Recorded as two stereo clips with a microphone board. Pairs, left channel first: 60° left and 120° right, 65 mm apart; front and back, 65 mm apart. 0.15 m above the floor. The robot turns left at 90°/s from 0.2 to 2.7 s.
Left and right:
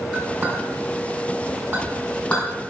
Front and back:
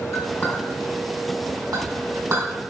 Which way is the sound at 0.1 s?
35° right.